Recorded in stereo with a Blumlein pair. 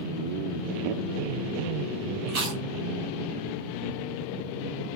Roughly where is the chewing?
Ahead right.